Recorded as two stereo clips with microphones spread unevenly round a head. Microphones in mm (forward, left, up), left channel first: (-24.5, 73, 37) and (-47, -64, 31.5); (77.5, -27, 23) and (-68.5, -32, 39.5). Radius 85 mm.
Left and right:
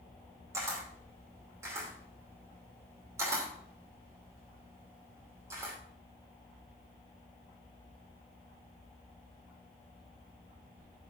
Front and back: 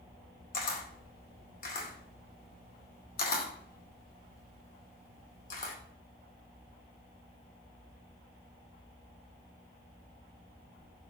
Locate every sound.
0.5 s a camera shutter: 25° right, 2.5 m